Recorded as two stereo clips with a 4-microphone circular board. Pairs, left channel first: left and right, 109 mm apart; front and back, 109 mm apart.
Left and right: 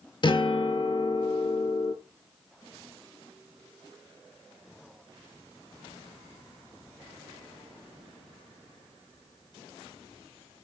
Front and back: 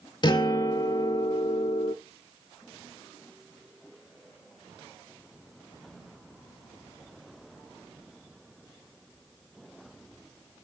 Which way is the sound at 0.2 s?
45° left.